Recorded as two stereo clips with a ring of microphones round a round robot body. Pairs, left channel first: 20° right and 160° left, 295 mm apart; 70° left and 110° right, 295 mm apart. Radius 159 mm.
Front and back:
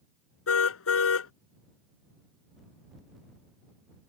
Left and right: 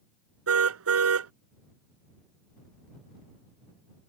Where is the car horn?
70° right.